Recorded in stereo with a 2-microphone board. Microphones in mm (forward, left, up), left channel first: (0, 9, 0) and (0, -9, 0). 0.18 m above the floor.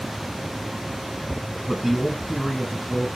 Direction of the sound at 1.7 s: 10° right (ahead or behind).